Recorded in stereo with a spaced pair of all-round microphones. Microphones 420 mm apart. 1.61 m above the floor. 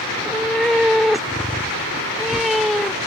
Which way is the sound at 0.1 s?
Centre (ahead or behind).